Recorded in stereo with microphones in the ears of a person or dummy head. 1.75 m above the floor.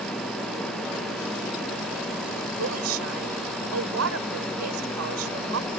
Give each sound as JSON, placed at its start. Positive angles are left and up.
{"t": 2.6, "sound": "a woman speaking", "side_deg": -80}